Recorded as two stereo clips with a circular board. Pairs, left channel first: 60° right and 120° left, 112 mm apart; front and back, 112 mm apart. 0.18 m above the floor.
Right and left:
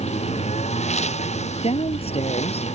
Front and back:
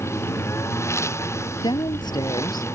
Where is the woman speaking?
45° right.